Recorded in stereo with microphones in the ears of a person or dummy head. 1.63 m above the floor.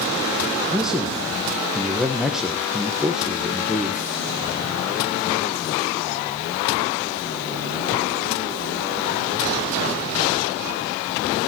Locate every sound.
0.7 s a man speaking: 5° right (ahead or behind), 1.2 m